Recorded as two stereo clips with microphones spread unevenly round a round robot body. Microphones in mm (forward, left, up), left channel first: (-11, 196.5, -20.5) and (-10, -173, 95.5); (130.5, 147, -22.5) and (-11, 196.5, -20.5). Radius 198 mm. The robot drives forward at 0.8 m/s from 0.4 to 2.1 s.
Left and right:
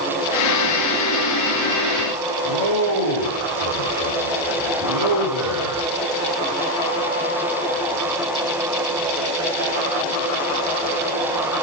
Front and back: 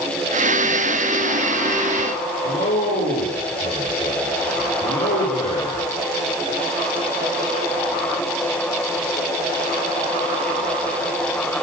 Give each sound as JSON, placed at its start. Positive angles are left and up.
{"t": 2.4, "sound": "a man speaking", "azimuth_deg": -55, "distance_m": 9.5}